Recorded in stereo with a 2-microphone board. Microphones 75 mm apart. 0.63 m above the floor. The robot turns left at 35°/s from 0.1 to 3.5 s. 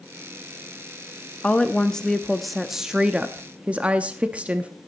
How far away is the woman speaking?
About 0.6 m.